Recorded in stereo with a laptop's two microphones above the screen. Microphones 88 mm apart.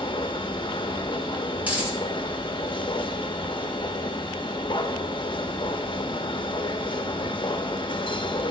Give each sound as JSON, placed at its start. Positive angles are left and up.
{"t": 0.0, "sound": "a machine running", "side_deg": 60, "distance_m": 0.7}
{"t": 1.6, "sound": "a dropped coin", "side_deg": -20, "distance_m": 2.5}